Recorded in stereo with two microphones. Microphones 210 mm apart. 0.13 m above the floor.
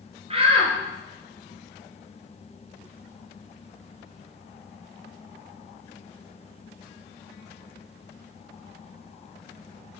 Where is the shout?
30° right (ahead or behind), 2 m.